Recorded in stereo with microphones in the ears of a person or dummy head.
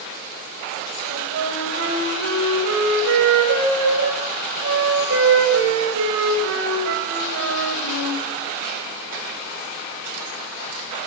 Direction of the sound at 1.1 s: 65° right (ahead or behind).